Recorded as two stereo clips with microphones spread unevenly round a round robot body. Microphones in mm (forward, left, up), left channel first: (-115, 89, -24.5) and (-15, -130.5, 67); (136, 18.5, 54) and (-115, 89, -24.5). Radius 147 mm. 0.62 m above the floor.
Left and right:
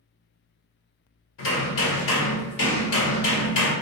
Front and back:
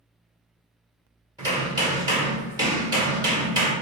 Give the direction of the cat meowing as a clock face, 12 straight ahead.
I don't hear a cat meowing.